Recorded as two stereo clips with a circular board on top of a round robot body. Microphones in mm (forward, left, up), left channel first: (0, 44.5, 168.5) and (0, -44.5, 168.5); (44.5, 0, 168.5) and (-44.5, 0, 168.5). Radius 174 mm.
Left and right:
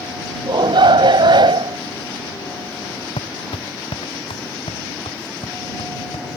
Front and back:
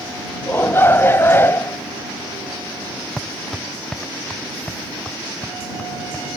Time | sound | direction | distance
0.5 | a shout | 65° right | ?
3.2 | footsteps | 85° left | ?